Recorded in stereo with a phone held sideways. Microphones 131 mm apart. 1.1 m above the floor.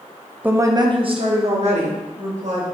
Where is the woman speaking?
15° right (ahead or behind), 0.7 m; by 2.6 s 65° right (ahead or behind), 2.5 m.